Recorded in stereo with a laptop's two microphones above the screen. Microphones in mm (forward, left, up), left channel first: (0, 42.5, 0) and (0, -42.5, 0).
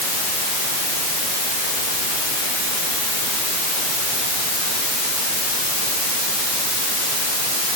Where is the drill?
No drill in this recording.